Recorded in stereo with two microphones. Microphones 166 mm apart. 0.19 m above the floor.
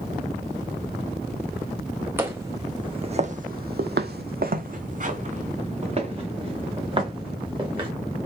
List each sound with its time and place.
2.2 s footsteps: 10° right (ahead or behind), 1.1 m; by 7.9 s 30° right (ahead or behind), 3 m